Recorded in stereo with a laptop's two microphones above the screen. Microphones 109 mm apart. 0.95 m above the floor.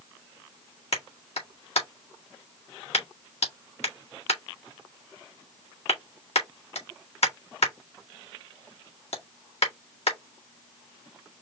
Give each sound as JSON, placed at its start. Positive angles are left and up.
{"t": 0.9, "sound": "a clap", "side_deg": 75, "distance_m": 1.8}